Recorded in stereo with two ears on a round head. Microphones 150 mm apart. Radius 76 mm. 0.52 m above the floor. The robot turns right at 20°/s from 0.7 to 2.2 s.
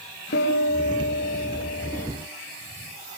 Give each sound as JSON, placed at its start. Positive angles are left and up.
{"t": 0.3, "sound": "a piano", "side_deg": 75, "distance_m": 9.0}